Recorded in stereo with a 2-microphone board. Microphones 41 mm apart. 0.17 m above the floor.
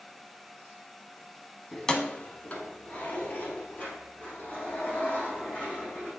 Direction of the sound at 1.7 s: 5° left (ahead or behind).